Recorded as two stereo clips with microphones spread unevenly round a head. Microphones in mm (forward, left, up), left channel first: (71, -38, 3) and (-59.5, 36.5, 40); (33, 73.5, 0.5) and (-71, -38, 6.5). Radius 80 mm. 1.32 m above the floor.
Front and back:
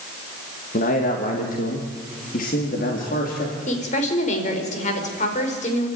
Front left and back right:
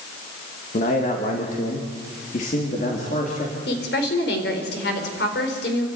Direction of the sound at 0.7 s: Straight ahead.